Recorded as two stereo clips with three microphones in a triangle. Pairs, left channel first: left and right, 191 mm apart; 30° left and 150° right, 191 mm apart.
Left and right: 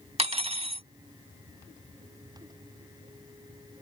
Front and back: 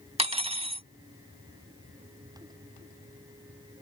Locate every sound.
0.2 s cutlery clinking: 120° right